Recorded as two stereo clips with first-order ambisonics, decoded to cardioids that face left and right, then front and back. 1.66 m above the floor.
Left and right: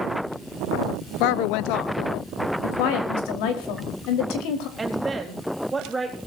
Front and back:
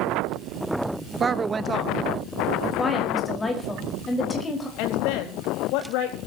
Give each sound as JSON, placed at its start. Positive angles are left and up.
{"t": 1.2, "sound": "a woman speaking", "azimuth_deg": 105, "distance_m": 0.9}
{"t": 2.6, "sound": "a woman speaking", "azimuth_deg": 75, "distance_m": 4.5}
{"t": 4.8, "sound": "a woman speaking", "azimuth_deg": -10, "distance_m": 4.5}